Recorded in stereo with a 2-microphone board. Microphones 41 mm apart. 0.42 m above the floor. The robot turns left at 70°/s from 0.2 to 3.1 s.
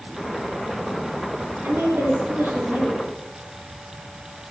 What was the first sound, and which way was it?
A woman speaking, 65° right.